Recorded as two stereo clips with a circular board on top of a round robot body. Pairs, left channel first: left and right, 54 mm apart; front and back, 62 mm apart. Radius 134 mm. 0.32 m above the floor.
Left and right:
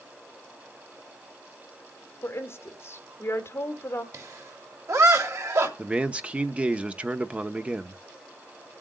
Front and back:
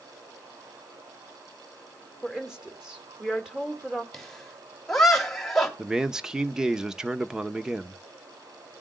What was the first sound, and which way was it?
A woman speaking, 100° left.